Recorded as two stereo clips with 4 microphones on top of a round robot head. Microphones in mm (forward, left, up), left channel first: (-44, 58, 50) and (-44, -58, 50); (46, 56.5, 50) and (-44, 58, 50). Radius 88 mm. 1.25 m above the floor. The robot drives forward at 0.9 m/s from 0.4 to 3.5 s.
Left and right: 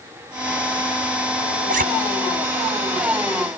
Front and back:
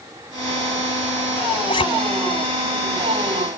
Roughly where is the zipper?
Ahead right.